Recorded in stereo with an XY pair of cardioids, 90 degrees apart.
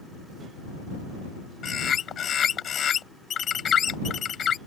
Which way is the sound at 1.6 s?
60° left.